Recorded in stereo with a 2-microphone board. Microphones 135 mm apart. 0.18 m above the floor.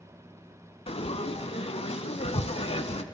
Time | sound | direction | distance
0.9 | frying | 45° left (ahead or behind) | 0.5 m